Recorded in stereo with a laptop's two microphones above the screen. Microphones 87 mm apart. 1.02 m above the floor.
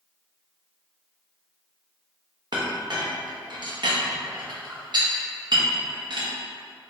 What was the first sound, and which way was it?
A clink, 65° right (ahead or behind).